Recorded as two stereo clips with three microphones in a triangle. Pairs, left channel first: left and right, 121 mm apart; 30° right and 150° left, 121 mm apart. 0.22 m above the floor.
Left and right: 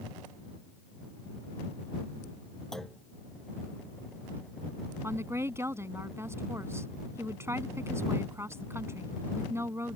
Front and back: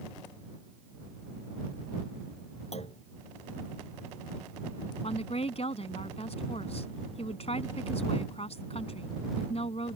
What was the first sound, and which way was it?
A clunk, 5° left.